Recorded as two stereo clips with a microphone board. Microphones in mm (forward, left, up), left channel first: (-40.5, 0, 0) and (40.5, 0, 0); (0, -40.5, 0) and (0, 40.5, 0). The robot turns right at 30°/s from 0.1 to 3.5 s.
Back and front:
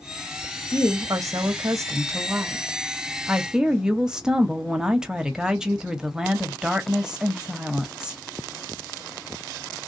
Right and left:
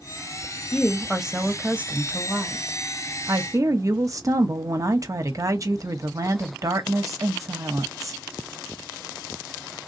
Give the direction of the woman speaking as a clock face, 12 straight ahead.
12 o'clock.